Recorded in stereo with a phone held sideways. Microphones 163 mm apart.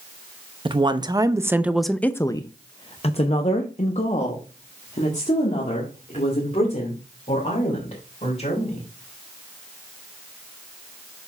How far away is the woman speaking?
About 0.8 m.